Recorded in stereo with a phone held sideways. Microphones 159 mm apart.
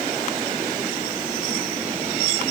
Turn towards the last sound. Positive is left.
No sound to turn to.